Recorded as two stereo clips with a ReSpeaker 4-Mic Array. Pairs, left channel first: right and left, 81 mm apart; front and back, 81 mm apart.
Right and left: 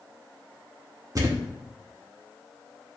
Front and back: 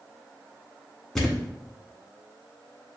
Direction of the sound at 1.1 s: 80° left.